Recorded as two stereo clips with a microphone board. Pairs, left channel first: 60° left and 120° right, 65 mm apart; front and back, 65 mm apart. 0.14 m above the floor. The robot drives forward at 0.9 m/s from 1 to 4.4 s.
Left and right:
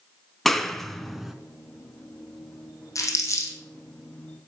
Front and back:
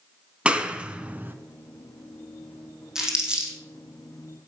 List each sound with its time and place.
0.5 s a clap: 145° left, 1.0 m; by 1.4 s 160° left, 1.2 m
3.0 s crumpling: 100° left, 3.5 m; by 3.6 s 110° left, 4 m